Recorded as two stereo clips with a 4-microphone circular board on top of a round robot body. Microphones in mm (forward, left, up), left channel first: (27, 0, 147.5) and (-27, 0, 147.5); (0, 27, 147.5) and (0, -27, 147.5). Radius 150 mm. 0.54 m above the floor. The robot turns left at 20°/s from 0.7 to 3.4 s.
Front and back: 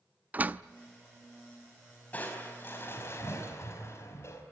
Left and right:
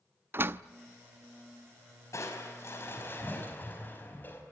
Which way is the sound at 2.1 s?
60° left.